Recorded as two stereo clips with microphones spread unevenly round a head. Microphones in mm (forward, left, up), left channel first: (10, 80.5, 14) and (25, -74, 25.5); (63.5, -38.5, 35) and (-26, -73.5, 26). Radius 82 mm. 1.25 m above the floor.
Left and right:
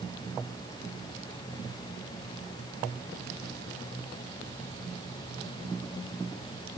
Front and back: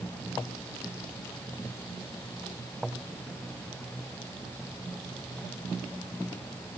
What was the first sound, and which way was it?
Only background noise.